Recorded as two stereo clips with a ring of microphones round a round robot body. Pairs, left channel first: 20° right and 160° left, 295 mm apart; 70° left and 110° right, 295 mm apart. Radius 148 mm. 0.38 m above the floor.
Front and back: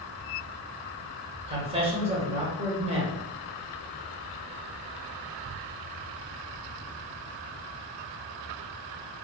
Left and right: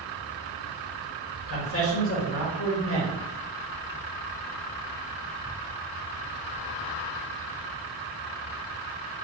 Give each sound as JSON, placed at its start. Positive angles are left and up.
{"t": 1.5, "sound": "a man speaking", "azimuth_deg": 95, "distance_m": 1.2}